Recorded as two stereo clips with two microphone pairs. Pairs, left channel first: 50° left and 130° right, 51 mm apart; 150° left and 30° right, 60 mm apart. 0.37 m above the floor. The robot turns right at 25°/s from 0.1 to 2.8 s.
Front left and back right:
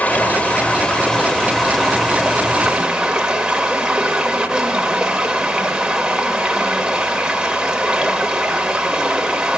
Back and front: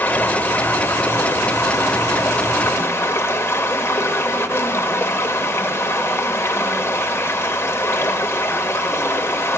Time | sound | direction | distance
0.0 | running water | 95° left | 0.7 m